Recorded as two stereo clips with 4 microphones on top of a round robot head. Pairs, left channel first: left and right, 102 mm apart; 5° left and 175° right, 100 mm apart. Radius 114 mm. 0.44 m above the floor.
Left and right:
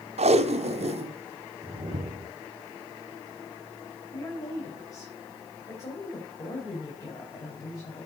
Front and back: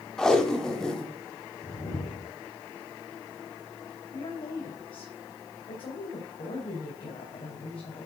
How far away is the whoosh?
About 1.0 m.